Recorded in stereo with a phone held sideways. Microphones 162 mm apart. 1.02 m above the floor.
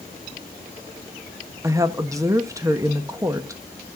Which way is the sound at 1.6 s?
20° right (ahead or behind).